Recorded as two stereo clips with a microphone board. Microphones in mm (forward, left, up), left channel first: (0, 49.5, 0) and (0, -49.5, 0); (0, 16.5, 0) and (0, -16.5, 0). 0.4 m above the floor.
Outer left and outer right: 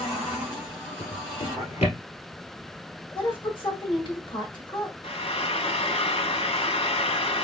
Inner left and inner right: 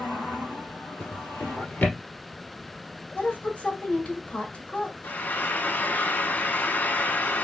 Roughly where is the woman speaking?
Left.